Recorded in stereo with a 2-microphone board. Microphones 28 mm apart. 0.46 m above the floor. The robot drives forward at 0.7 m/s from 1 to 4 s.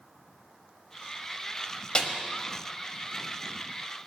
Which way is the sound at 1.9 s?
35° left (ahead or behind).